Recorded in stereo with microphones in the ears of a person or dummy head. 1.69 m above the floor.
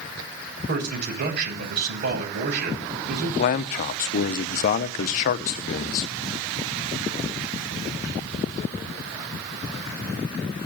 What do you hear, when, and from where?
0.7 s a man speaking: 60° right (ahead or behind), 8 m
3.4 s a man speaking: 40° left (ahead or behind), 0.8 m